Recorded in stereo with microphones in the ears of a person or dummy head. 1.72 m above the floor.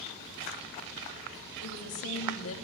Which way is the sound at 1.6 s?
65° left (ahead or behind).